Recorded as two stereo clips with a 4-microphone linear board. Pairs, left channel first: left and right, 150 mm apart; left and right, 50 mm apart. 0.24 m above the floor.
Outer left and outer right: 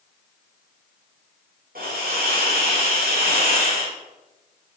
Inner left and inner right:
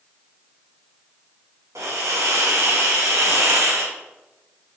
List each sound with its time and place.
1.8 s a hiss: 85° right, 2.5 m